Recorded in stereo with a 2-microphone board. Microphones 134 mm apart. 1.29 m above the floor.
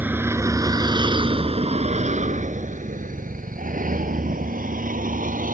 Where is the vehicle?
15° right (ahead or behind); by 5.5 s 80° right.